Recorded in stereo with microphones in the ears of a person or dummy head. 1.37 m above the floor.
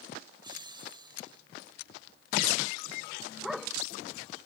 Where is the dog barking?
Centre (ahead or behind).